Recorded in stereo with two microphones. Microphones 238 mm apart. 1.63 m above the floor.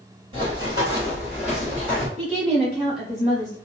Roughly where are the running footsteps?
Right.